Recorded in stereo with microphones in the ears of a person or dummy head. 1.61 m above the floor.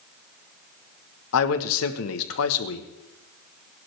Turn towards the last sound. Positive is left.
turn(degrees=70)  # may be behind; listen again after turning